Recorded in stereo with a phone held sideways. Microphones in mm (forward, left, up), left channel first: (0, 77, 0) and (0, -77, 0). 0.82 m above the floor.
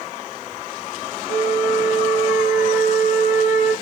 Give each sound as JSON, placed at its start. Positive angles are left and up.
{"t": 1.3, "sound": "a flute", "side_deg": 45, "distance_m": 0.9}